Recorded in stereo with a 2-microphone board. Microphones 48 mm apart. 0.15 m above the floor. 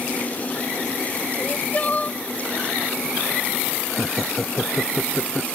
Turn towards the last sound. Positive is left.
turn(degrees=0)  # may be behind; listen again after turning